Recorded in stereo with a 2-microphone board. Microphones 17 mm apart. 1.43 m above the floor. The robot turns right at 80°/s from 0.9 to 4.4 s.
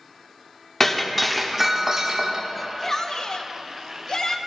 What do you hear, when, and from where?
0.8 s breaking glass: 145° left, 1.1 m; by 2.4 s 95° right, 1.1 m
2.5 s a shout: straight ahead, 0.9 m; by 4.4 s 145° left, 0.9 m